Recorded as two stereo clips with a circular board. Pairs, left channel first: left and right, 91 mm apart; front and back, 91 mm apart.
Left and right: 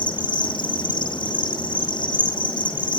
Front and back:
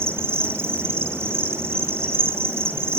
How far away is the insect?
About 3 m.